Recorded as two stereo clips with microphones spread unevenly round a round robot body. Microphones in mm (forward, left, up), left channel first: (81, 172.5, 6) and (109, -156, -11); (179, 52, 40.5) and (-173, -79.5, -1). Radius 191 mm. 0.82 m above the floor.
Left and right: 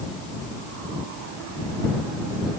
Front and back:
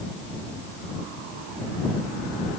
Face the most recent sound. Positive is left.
No sound to turn to.